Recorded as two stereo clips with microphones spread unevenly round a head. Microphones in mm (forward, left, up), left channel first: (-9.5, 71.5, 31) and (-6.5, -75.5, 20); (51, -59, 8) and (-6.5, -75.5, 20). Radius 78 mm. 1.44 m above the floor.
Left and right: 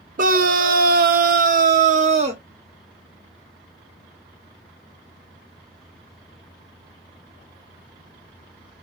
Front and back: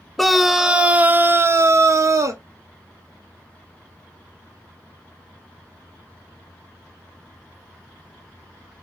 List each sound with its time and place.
0.2 s a scream: 65° right, 1.0 m; by 2.4 s 135° right, 1.3 m